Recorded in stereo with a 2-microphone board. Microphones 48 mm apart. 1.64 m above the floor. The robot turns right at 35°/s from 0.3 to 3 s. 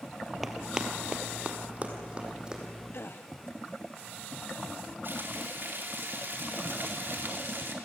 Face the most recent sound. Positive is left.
turn(degrees=-50)  # may be behind; listen again after turning